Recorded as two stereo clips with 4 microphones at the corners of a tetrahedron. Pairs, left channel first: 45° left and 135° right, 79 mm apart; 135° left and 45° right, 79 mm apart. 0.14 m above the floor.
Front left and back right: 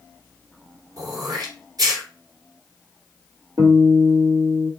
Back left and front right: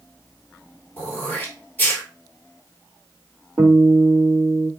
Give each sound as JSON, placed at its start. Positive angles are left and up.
{"t": 1.0, "sound": "throat clearing", "azimuth_deg": -165, "distance_m": 1.8}
{"t": 3.6, "sound": "a guitar", "azimuth_deg": -120, "distance_m": 2.5}